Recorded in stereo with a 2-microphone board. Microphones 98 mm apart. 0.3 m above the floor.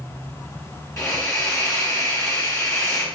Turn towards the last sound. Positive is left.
turn(degrees=35)  # may be behind; listen again after turning